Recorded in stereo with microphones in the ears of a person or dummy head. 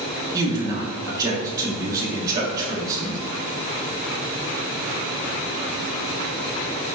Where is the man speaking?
20° right (ahead or behind), 1.2 m.